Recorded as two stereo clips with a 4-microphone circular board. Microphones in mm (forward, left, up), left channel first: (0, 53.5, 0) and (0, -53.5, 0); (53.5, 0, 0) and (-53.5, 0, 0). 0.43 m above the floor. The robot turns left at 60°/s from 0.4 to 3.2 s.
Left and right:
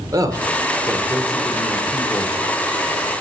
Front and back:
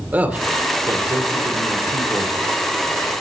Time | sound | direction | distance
0.1 | a man speaking | 115° right | 1.0 m